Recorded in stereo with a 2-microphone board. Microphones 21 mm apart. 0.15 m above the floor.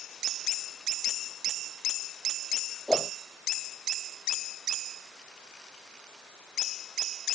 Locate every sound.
2.9 s a whoosh: 5° right (ahead or behind)